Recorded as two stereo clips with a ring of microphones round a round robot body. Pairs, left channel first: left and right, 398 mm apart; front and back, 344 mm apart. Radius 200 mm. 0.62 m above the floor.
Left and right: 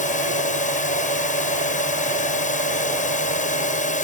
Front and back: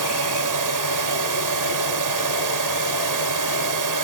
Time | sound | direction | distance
0.0 | a drone | 160° left | ?